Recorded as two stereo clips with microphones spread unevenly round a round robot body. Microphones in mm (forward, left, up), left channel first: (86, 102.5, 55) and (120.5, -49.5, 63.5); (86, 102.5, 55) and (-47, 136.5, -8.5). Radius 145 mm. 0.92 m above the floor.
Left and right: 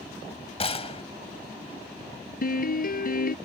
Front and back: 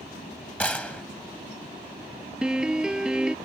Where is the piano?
75° left.